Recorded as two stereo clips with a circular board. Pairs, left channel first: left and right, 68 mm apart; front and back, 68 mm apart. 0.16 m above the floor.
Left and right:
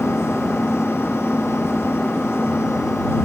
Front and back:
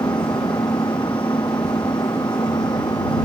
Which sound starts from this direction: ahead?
An engine running, at 0.0 s.